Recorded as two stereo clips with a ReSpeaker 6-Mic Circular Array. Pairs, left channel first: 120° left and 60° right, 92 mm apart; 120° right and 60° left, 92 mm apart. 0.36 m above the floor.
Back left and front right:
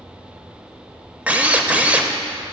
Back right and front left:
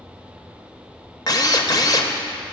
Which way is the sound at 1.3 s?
130° right.